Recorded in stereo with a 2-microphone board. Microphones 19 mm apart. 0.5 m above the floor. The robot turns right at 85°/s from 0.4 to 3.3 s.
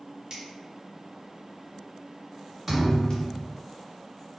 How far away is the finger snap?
About 1.2 m.